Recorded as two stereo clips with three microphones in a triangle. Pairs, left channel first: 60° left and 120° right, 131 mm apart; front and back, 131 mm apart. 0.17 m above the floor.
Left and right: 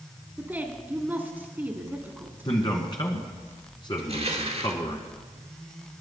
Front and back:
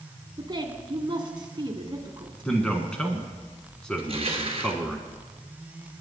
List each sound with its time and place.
0.4 s a woman speaking: 175° left, 1.6 m
2.5 s a man speaking: 80° left, 1.5 m
4.0 s crushing: 145° right, 1.3 m